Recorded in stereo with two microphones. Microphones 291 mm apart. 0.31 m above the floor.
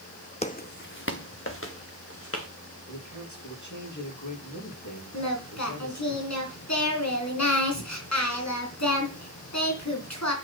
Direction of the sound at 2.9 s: 80° left.